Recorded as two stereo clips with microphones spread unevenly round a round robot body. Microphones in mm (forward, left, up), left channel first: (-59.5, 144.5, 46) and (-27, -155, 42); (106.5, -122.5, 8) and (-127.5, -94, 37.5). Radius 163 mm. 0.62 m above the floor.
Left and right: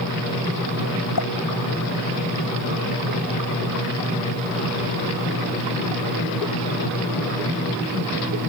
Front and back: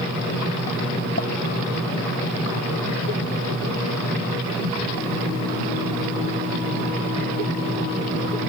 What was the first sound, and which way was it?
A pop, 55° left.